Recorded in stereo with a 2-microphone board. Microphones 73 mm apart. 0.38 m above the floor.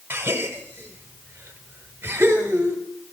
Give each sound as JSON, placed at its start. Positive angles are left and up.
{"t": 0.1, "sound": "a gasp", "side_deg": -30, "distance_m": 1.2}